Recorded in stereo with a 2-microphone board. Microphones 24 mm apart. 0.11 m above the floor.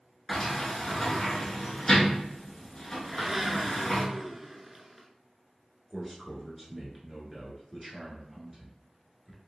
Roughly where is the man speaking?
Centre.